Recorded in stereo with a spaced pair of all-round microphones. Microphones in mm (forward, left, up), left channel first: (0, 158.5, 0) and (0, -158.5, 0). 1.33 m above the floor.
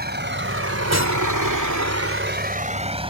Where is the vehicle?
30° right (ahead or behind); by 3.1 s 15° right (ahead or behind).